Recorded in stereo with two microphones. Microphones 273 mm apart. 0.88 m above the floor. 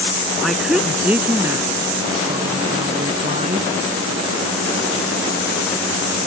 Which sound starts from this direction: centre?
A woman speaking, at 0.4 s.